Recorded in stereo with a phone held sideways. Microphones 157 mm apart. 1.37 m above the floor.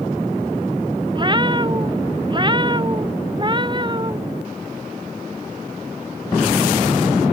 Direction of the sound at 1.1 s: 30° right (ahead or behind).